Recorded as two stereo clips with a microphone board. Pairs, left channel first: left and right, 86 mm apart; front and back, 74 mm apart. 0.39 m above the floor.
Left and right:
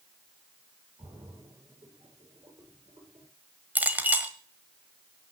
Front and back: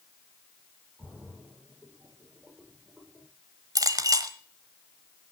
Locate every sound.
1.0 s a splash: 110° right, 9 m
3.8 s a clink: 155° right, 1.3 m